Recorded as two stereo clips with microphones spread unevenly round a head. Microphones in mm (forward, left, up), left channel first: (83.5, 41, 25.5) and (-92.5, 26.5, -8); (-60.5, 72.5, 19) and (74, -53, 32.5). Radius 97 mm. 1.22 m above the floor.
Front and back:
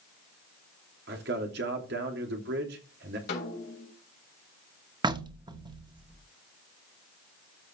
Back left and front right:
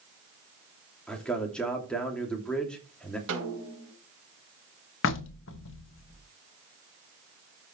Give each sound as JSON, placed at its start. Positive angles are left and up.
{"t": 1.1, "sound": "a man speaking", "azimuth_deg": -135, "distance_m": 2.5}
{"t": 3.3, "sound": "a snare drum", "azimuth_deg": -35, "distance_m": 3.5}
{"t": 5.0, "sound": "knocking", "azimuth_deg": 115, "distance_m": 1.1}